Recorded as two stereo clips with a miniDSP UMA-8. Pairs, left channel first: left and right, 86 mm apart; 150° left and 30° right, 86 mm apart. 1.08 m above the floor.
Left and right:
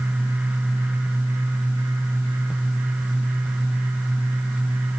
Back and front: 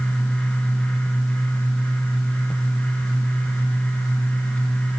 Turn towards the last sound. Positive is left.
No sound to turn to.